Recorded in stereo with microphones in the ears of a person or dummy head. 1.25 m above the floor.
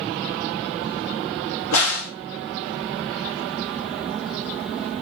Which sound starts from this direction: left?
A crack, at 1.7 s.